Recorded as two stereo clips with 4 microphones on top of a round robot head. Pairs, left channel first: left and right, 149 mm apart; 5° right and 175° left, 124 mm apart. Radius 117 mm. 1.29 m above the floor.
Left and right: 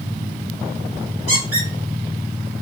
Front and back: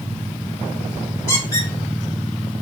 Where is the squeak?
25° right, 1.7 m.